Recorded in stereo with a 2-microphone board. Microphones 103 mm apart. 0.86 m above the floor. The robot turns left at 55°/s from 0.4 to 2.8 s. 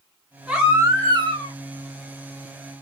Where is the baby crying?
5° right, 1.6 m; by 1.5 s 65° right, 1.6 m.